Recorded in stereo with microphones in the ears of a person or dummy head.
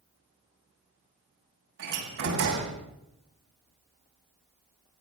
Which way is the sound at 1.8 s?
60° right (ahead or behind).